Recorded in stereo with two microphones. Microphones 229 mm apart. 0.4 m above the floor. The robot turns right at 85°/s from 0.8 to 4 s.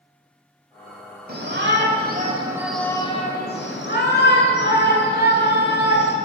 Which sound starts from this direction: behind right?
A shout, at 1.3 s.